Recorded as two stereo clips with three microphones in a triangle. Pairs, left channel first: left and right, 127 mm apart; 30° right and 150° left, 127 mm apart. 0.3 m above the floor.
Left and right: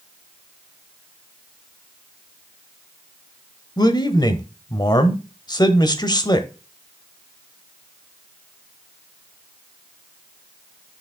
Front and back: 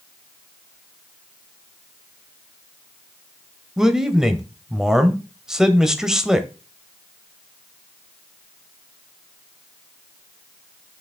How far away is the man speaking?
About 1.0 m.